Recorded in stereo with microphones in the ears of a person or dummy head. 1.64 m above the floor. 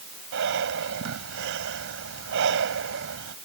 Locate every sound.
0.3 s breathing: 75° right (ahead or behind)